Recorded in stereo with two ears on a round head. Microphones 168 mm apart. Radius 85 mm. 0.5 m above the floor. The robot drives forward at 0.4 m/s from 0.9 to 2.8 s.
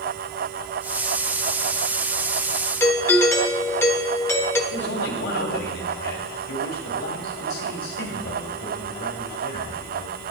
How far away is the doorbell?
About 1.1 m.